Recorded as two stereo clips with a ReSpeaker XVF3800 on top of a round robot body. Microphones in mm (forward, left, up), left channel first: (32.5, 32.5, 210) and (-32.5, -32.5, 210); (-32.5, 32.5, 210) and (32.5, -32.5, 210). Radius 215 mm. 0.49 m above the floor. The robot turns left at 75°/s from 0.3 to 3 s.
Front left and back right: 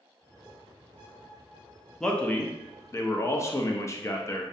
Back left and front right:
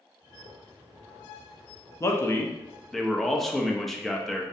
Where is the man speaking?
125° left, 0.7 m; by 4.5 s 50° left, 0.7 m.